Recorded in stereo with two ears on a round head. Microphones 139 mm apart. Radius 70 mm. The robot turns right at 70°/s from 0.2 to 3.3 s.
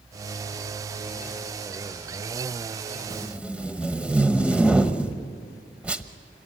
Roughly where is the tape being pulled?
Right.